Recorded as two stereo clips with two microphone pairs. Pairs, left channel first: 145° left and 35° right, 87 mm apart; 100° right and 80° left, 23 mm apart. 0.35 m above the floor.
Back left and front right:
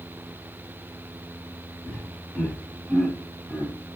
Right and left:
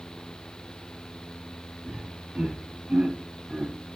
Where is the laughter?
70° left, 3 m; by 3.7 s 55° left, 2.0 m.